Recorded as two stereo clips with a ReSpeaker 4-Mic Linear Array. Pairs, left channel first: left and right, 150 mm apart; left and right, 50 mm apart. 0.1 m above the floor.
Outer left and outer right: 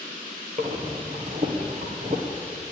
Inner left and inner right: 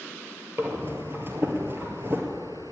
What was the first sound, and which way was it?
Breathing, 50° right (ahead or behind).